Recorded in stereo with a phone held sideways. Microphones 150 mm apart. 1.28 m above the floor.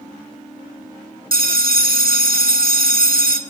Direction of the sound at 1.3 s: 80° right.